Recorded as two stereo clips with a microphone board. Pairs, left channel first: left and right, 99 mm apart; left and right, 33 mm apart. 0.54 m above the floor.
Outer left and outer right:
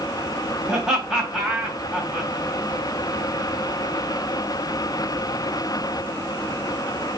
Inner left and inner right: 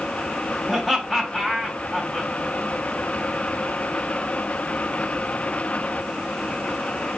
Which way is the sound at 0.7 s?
5° right (ahead or behind).